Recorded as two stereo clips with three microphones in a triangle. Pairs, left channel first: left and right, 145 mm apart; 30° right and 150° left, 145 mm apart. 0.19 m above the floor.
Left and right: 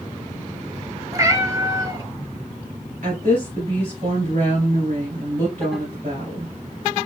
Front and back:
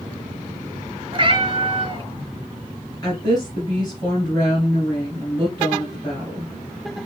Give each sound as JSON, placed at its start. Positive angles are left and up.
{"t": 1.1, "sound": "a cat meowing", "azimuth_deg": -155, "distance_m": 0.6}
{"t": 3.0, "sound": "a woman speaking", "azimuth_deg": -90, "distance_m": 2.5}